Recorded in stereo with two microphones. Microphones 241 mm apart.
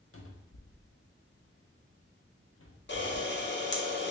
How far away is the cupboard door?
About 0.6 m.